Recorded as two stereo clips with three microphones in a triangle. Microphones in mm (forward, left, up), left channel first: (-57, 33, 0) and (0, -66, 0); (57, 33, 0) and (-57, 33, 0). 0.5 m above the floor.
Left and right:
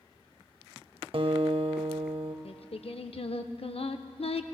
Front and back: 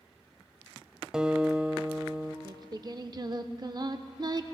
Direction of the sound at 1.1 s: 95° right.